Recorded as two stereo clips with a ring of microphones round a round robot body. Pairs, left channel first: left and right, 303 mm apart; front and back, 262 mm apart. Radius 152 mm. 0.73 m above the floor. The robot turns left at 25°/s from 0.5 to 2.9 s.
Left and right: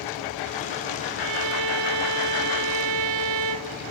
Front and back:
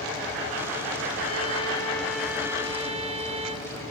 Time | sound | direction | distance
1.2 | a violin | 65° right | 0.5 m